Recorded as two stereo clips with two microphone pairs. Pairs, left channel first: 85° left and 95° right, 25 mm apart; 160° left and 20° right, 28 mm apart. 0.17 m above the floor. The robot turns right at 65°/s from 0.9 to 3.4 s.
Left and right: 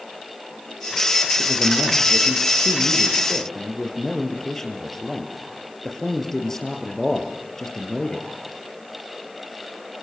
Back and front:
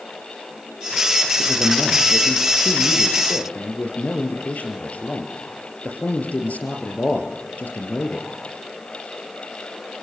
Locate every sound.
1.4 s a man speaking: 20° left, 4 m; by 8.3 s 150° left, 4 m